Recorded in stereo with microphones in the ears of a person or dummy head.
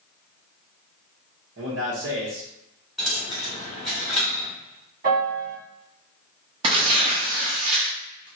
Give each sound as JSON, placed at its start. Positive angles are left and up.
{"t": 1.6, "sound": "a man speaking", "side_deg": -60, "distance_m": 1.0}
{"t": 3.0, "sound": "a dropped coin", "side_deg": -5, "distance_m": 1.5}
{"t": 5.0, "sound": "a piano", "side_deg": -50, "distance_m": 1.8}
{"t": 6.6, "sound": "tearing paper", "side_deg": -30, "distance_m": 0.7}